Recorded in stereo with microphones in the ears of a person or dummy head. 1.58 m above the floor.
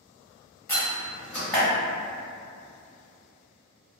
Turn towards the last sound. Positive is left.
turn(degrees=10)  # may be behind; listen again after turning